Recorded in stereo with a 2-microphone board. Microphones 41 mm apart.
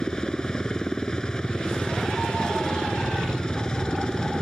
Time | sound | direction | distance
0.0 | a helicopter | 20° left (ahead or behind) | ?